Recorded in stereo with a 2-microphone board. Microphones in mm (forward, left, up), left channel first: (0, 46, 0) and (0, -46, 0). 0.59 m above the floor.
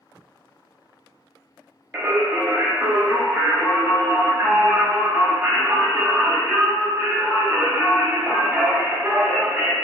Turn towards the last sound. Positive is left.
turn(degrees=-20)  # may be behind; listen again after turning